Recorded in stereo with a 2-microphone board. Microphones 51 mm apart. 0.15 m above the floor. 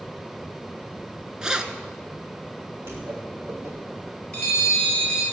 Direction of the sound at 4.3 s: 20° left (ahead or behind).